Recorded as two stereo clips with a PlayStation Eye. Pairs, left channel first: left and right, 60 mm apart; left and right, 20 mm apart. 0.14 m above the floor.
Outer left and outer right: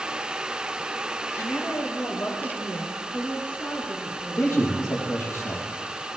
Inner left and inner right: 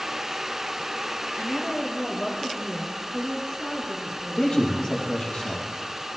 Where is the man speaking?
45° left (ahead or behind), 4.5 m.